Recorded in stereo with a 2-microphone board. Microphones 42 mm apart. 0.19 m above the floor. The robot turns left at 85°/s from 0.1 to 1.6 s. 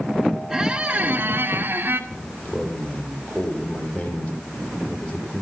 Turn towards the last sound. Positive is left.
turn(degrees=45)  # may be behind; listen again after turning